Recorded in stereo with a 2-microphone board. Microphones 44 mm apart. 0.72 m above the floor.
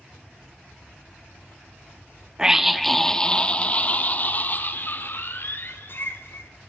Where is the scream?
15° right (ahead or behind), 1.0 m; by 6.5 s 55° left (ahead or behind), 3 m.